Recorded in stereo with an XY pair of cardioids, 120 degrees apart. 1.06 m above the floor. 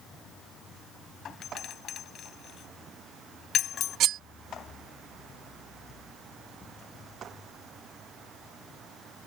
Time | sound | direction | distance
1.2 | a doorbell | 55° left | ?
4.0 | cutlery clinking | 65° right | ?